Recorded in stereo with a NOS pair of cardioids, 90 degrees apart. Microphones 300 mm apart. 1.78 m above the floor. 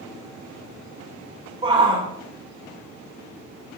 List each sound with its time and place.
1.6 s a shout: 20° right, 3.5 m